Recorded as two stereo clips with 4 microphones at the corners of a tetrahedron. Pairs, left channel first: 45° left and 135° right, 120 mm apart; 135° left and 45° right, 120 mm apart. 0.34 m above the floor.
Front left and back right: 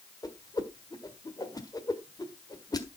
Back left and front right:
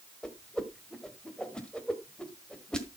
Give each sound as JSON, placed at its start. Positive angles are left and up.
{"t": 0.2, "sound": "a whoosh", "azimuth_deg": 60, "distance_m": 1.4}